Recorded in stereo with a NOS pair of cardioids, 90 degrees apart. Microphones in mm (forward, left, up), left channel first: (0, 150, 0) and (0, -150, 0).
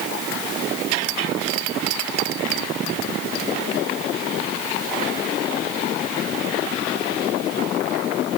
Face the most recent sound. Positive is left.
No sound to turn to.